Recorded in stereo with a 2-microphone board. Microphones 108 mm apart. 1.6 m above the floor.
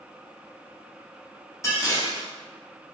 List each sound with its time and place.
1.6 s dishes clattering: 30° left (ahead or behind), 0.8 m